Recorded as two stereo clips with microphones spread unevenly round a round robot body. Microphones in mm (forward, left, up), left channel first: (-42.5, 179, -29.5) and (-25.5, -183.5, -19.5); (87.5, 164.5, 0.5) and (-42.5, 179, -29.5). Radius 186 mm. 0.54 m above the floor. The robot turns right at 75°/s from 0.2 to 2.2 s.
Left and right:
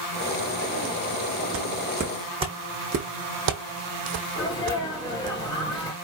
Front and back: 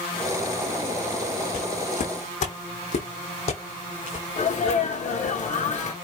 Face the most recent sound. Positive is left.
turn(degrees=20)